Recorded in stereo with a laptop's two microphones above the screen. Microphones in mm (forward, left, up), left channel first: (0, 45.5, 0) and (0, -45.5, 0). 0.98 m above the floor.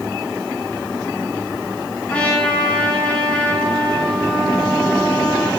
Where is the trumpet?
15° left (ahead or behind), 2.5 m.